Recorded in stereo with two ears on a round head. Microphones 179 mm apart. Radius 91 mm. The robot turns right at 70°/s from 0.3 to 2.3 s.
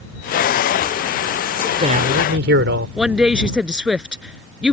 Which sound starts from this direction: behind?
A man speaking, at 1.6 s.